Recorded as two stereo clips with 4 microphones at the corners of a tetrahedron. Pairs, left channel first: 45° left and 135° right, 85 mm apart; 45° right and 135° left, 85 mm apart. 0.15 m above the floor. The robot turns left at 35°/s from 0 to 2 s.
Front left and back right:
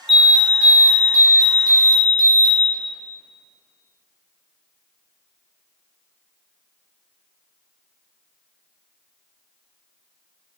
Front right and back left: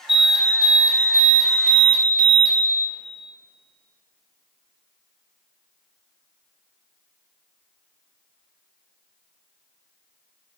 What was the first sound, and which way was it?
An alarm, 45° right.